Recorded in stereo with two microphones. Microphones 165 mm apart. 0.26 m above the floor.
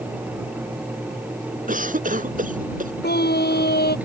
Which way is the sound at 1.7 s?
55° right (ahead or behind).